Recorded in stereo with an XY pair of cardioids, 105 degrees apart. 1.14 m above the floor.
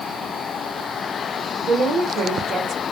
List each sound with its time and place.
1.6 s a woman speaking: 60° right, 1.0 m